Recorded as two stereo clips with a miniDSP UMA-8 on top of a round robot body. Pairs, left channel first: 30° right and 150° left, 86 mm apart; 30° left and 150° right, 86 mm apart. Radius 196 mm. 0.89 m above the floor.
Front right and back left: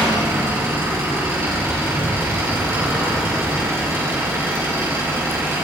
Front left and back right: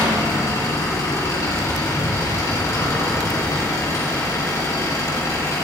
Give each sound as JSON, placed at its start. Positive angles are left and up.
{"t": 0.0, "sound": "an engine running", "azimuth_deg": 90, "distance_m": 3.5}